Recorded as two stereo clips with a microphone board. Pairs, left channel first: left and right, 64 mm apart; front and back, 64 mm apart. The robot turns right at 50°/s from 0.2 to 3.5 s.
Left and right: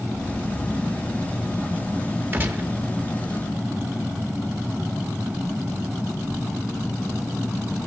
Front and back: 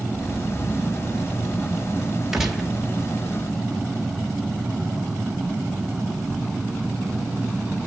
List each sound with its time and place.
2.3 s a gunshot: 105° right, 1.0 m; by 2.7 s 85° right, 1.0 m